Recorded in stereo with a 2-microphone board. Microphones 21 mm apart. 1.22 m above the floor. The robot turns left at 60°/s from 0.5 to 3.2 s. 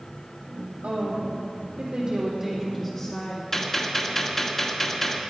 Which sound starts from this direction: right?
A woman speaking, at 0.8 s.